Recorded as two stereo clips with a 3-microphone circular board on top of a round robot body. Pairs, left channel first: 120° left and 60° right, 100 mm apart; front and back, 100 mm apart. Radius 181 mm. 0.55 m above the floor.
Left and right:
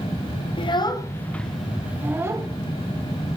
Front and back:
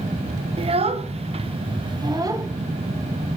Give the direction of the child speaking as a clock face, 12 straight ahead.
7 o'clock.